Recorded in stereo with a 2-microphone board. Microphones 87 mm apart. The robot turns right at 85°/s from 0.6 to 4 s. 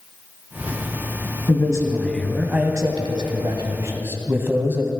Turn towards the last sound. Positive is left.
turn(degrees=-30)